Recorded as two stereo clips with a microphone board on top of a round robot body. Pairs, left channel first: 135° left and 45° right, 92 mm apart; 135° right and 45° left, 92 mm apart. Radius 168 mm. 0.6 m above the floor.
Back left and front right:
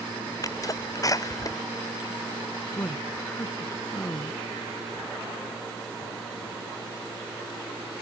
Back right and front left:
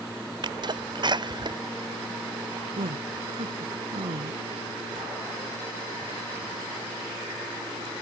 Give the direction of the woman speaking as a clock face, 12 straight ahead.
10 o'clock.